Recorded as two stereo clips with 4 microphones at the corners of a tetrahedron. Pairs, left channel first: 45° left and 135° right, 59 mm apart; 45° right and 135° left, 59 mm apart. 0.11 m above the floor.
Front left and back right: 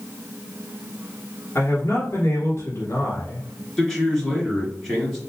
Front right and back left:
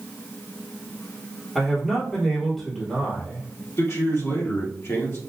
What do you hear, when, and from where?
1.6 s a man speaking: 40° left, 1.6 m
3.8 s a man speaking: 35° right, 2.5 m